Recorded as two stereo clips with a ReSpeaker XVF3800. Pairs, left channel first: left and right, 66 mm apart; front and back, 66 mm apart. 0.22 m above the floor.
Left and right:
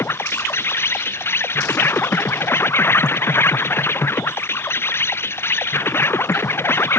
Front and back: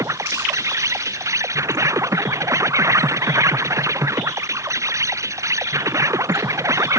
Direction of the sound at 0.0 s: 140° left.